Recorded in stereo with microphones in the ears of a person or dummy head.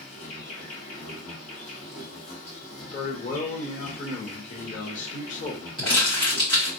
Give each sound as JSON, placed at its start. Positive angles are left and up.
{"t": 0.0, "sound": "an insect", "side_deg": 55, "distance_m": 1.8}
{"t": 2.9, "sound": "a man speaking", "side_deg": 45, "distance_m": 1.1}
{"t": 5.8, "sound": "crumpling", "side_deg": 25, "distance_m": 1.5}